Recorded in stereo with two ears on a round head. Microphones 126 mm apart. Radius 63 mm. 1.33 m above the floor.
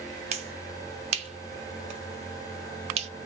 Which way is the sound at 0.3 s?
45° right (ahead or behind).